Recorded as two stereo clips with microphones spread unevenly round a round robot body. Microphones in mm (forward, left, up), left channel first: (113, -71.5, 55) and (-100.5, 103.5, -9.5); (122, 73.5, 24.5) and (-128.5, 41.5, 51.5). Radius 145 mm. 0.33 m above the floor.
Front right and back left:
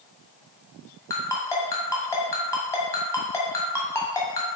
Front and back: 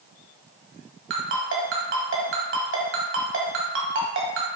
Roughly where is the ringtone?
Behind right.